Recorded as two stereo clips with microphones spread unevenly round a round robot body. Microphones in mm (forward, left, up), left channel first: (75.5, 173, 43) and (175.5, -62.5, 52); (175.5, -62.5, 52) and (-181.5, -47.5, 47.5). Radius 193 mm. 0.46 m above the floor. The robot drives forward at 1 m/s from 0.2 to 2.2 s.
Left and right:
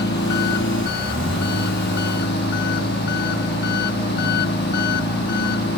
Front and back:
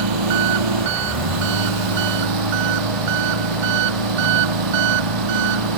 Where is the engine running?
175° left; by 5.8 s straight behind.